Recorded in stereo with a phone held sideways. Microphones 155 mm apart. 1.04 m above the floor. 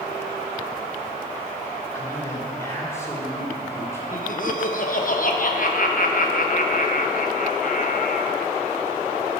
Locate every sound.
1.9 s a man speaking: 20° left (ahead or behind), 3.5 m
4.1 s laughter: 60° left (ahead or behind), 1.0 m